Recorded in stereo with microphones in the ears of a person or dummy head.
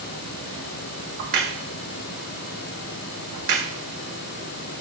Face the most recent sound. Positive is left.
turn(degrees=-45)  # may be behind; listen again after turning